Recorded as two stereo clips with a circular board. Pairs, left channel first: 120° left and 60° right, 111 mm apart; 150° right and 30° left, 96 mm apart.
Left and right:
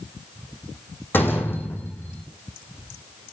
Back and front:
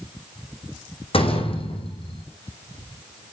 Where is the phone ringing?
I don't hear a phone ringing.